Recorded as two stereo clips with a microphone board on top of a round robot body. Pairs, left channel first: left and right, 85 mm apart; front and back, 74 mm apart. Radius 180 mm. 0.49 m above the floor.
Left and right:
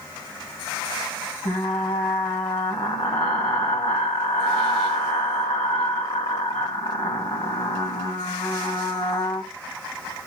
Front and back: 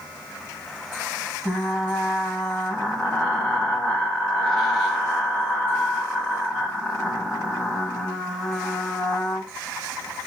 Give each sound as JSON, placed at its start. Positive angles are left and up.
{"t": 1.4, "sound": "frying", "azimuth_deg": 85, "distance_m": 2.5}